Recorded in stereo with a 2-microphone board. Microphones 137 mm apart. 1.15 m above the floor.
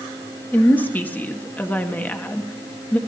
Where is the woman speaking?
10° left (ahead or behind), 1.3 m.